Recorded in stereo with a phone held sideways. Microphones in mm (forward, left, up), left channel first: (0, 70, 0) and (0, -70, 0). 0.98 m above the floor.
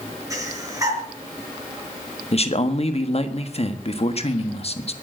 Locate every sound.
0.3 s breathing: 25° right (ahead or behind), 4 m
2.3 s a man speaking: 45° left (ahead or behind), 1.4 m